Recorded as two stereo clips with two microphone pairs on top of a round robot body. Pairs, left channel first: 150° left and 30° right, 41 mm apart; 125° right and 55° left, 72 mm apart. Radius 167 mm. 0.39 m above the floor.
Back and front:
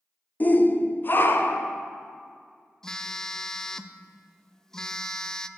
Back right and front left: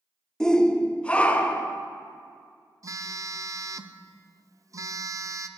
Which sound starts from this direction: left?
A phone buzzing, at 2.8 s.